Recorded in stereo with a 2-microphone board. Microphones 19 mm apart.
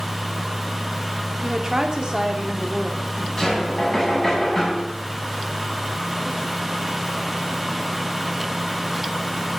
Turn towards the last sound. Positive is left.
turn(degrees=20)  # may be behind; listen again after turning